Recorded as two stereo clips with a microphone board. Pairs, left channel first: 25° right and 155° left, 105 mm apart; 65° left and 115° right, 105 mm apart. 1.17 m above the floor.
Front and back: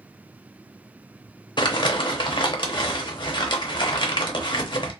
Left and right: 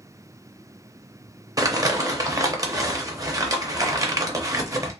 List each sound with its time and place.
1.6 s crumpling: 60° right, 0.6 m